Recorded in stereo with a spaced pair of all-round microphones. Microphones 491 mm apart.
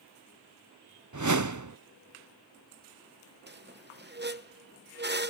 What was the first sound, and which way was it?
A whoosh, 40° right (ahead or behind).